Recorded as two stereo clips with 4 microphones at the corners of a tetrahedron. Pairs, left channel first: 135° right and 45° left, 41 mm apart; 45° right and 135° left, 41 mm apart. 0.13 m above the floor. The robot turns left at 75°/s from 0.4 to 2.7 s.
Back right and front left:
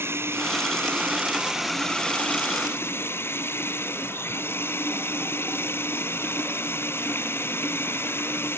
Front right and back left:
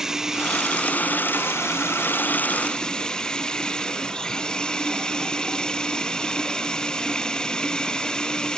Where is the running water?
55° left; by 8.6 s 120° right.